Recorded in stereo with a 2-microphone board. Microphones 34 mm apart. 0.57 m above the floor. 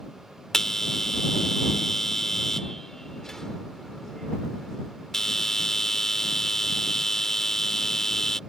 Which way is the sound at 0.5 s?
10° left (ahead or behind).